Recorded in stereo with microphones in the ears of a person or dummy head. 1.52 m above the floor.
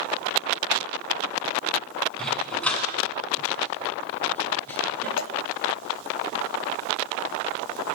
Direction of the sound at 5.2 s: 80° left.